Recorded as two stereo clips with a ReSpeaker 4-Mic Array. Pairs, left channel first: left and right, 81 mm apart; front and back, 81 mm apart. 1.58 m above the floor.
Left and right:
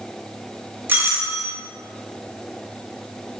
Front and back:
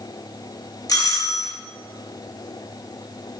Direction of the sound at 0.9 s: 30° right.